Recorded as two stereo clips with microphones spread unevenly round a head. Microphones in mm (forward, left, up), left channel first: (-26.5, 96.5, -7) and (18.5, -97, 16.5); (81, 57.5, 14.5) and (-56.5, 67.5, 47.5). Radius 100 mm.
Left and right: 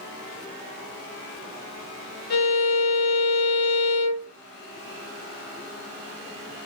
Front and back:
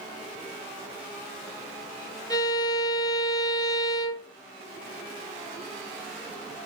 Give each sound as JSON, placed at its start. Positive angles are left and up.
{"t": 2.3, "sound": "a violin", "azimuth_deg": 60, "distance_m": 1.2}